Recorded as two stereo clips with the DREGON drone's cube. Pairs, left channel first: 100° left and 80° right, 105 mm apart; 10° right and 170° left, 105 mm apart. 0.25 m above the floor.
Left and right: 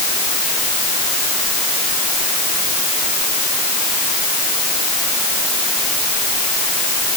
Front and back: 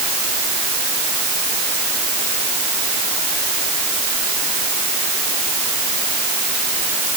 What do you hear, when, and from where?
Only background noise.